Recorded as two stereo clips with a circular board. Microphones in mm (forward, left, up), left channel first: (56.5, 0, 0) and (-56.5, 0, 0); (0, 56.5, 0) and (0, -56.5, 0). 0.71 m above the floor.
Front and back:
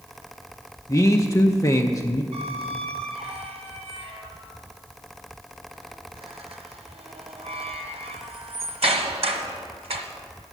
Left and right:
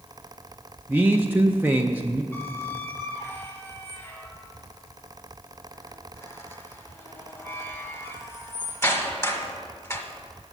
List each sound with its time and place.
0.9 s a man speaking: 30° right, 0.6 m
2.3 s a squeak: 155° left, 1.2 m